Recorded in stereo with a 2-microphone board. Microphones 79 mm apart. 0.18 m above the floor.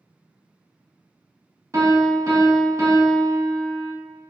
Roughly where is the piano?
Right.